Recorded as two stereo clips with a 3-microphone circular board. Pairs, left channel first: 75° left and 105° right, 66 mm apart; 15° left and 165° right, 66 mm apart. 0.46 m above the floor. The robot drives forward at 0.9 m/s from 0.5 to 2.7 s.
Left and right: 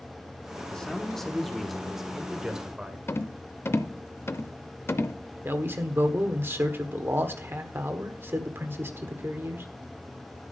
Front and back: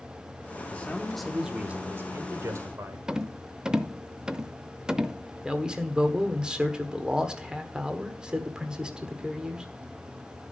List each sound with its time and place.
0.7 s a man speaking: 15° left, 1.0 m; by 3.0 s 175° left, 1.7 m
3.1 s a rattle: 120° left, 0.6 m
5.5 s a man speaking: 95° right, 1.3 m